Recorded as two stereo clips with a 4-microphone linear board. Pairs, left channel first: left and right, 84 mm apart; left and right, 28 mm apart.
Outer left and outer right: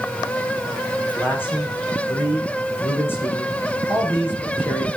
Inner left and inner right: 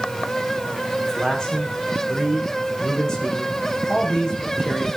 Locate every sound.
1.1 s a man speaking: 25° left (ahead or behind), 6.5 m